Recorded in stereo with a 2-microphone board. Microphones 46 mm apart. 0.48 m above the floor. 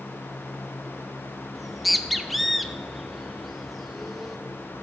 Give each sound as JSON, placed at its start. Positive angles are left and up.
{"t": 1.6, "sound": "a bird", "side_deg": -5, "distance_m": 0.5}